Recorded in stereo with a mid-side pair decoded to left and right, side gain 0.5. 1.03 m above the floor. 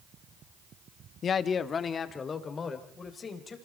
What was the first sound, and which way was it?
A man speaking, 50° left.